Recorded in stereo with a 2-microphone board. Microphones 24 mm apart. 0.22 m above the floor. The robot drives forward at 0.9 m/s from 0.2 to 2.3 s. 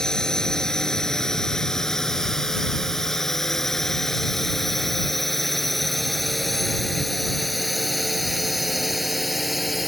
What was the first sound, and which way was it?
A drone, 25° left (ahead or behind).